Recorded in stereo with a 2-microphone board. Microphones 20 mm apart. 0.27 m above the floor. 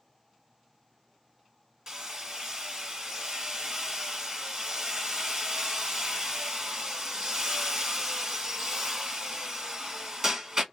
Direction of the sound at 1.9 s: 30° right (ahead or behind).